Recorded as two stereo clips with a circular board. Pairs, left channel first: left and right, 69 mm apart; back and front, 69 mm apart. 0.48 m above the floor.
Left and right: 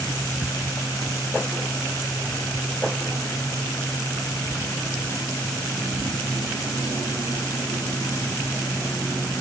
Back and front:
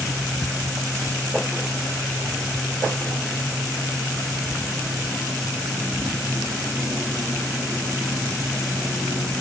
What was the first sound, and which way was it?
Only background noise.